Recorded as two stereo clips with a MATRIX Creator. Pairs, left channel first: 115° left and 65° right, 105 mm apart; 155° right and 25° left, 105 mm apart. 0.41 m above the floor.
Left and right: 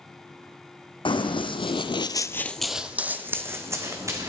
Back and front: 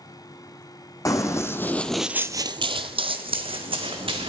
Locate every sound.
1.1 s running footsteps: 150° left, 1.2 m; by 4.3 s 5° right, 1.9 m